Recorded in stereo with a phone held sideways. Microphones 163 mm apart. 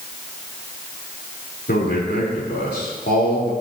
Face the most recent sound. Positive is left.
turn(degrees=85)